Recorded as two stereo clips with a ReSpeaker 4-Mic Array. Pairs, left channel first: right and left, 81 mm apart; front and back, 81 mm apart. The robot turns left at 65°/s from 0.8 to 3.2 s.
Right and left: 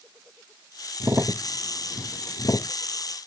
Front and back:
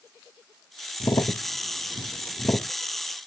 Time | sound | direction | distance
1.0 | a crack | 40° left | ?